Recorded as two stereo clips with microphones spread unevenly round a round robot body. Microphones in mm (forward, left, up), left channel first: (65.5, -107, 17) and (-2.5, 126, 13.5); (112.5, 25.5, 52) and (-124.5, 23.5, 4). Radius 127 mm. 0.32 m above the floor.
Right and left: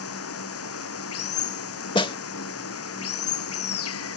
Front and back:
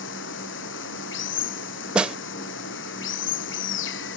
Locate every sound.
0.0 s running water: 45° right
1.9 s a snare drum: 120° right